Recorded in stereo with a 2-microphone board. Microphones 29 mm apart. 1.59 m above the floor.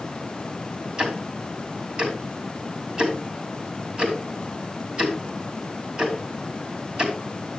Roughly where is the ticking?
Right.